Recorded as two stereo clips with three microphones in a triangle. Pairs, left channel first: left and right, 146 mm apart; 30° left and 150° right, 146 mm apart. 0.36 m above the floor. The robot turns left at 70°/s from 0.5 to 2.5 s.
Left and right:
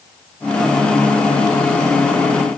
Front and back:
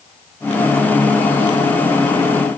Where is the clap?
I don't hear a clap.